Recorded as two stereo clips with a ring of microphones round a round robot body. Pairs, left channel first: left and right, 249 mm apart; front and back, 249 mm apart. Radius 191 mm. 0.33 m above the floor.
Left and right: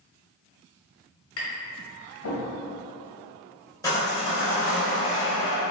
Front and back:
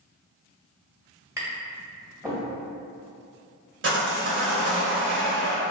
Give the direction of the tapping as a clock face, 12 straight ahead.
9 o'clock.